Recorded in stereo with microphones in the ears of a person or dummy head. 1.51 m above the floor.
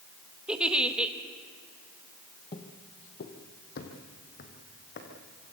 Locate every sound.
0.5 s a giggle: 5° right (ahead or behind), 1.2 m
2.5 s footsteps: 20° left (ahead or behind), 1.7 m; by 5.1 s 55° left (ahead or behind), 4.5 m